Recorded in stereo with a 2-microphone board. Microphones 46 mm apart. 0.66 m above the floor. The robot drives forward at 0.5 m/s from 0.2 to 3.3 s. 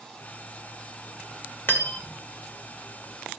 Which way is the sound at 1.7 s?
55° left (ahead or behind).